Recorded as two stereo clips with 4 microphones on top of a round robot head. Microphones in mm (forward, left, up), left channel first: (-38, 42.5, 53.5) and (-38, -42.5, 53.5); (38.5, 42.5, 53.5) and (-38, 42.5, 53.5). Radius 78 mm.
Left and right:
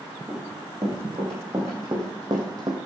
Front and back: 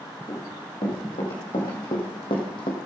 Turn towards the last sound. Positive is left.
turn(degrees=-40)